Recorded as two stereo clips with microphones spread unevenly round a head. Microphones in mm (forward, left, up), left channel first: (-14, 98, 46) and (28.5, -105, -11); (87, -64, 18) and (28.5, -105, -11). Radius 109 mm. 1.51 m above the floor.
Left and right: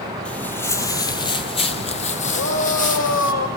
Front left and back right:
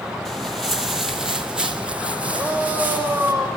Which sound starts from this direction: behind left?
A shout, at 2.3 s.